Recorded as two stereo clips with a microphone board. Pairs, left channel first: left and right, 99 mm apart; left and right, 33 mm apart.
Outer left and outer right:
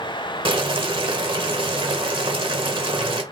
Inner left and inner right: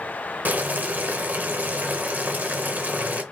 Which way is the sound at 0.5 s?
60° right (ahead or behind).